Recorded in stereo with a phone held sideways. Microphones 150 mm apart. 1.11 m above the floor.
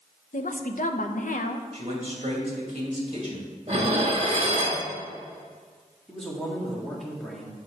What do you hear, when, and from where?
0.3 s a woman speaking: 70° left (ahead or behind), 0.7 m
1.7 s a man speaking: 45° right (ahead or behind), 2.0 m
3.7 s dishes clattering: 45° right (ahead or behind), 1.4 m
6.1 s a man speaking: centre (ahead or behind), 1.9 m